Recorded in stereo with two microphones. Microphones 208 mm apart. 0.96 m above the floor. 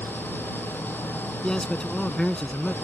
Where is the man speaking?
5° left (ahead or behind).